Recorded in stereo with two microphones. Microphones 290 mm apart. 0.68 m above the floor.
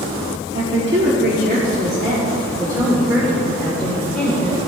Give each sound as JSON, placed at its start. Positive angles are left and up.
{"t": 0.5, "sound": "a woman speaking", "side_deg": -45, "distance_m": 1.5}